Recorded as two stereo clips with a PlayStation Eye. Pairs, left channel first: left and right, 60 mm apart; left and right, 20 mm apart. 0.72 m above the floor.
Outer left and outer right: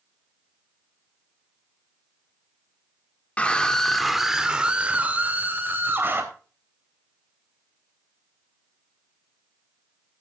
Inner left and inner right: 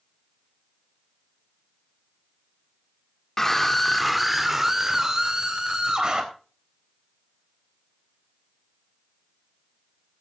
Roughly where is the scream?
Left.